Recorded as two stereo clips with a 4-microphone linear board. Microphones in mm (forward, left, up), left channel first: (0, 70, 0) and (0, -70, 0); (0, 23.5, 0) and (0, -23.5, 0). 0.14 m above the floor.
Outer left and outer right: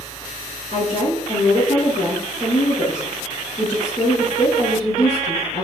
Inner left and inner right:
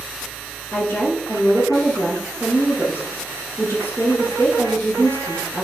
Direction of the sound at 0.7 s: 60° left (ahead or behind).